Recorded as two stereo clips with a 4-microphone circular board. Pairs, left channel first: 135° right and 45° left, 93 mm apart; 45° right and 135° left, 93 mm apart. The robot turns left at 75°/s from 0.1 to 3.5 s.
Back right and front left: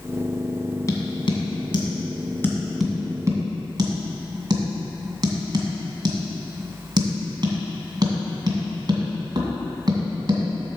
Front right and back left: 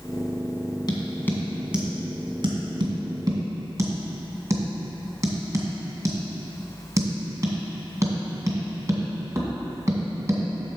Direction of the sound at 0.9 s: 85° right.